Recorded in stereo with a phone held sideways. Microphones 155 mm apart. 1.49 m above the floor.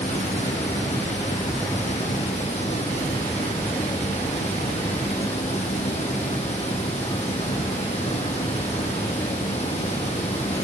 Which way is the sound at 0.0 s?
40° left (ahead or behind).